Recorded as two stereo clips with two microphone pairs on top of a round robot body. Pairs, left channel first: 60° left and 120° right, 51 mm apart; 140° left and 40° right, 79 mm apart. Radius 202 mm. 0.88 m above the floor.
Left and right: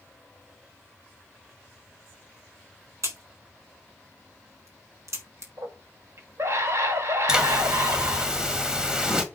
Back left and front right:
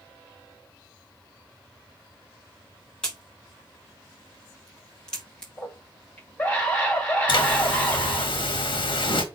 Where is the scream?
150° right, 4 m.